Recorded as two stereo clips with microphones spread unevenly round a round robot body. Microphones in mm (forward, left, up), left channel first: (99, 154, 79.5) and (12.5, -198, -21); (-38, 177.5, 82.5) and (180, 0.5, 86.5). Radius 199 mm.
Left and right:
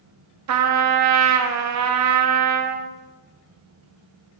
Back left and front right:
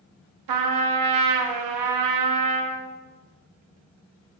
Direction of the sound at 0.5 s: 50° right.